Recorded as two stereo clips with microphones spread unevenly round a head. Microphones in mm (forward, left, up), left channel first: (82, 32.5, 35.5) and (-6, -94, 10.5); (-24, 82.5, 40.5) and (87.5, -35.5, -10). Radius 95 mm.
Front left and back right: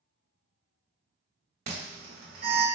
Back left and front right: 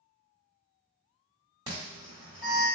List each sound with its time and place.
1.7 s an alarm: 110° right, 1.4 m